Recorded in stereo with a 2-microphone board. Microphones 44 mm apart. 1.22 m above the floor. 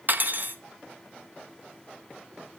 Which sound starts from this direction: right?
Cutlery clinking, at 0.1 s.